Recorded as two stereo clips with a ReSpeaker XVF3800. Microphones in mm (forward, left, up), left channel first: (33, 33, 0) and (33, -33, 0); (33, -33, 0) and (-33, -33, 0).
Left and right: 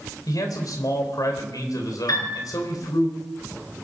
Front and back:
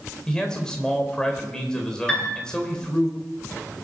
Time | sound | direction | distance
0.3 | a man speaking | 75° left | 3.5 m
2.1 | a piano | 75° left | 9 m